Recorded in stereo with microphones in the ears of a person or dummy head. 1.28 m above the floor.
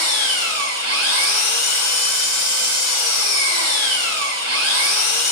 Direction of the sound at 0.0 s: 75° right (ahead or behind).